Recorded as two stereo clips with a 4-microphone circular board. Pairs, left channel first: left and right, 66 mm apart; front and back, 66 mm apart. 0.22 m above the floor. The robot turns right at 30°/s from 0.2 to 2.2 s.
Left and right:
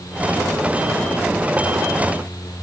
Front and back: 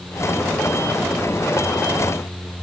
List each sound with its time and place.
Only background noise.